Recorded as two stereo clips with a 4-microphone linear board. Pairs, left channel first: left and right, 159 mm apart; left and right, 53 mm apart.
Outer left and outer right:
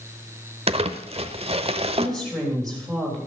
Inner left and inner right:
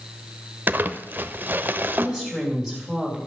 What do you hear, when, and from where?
0.7 s crumpling: 40° right (ahead or behind), 0.8 m
2.0 s a woman speaking: 5° left (ahead or behind), 3 m